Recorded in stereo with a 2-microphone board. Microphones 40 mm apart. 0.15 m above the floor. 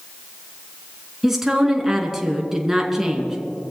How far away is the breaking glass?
I don't hear breaking glass.